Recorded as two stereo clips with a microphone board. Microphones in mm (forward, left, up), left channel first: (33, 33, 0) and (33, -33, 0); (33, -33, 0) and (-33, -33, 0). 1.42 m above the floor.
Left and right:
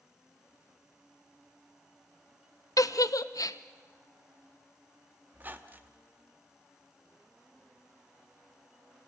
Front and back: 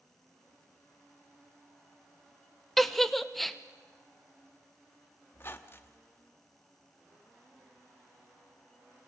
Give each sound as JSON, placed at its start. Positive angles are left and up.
{"t": 2.8, "sound": "a giggle", "azimuth_deg": 85, "distance_m": 0.7}
{"t": 5.3, "sound": "a squeak", "azimuth_deg": -40, "distance_m": 1.2}